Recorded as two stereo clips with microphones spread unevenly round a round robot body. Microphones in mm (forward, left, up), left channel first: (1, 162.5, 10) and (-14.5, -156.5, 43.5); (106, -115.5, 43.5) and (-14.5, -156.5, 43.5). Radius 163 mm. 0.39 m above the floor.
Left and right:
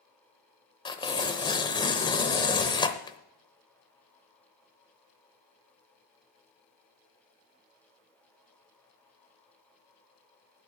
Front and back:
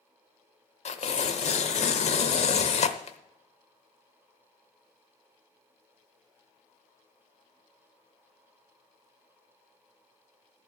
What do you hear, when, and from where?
0.8 s tearing paper: 15° left, 0.8 m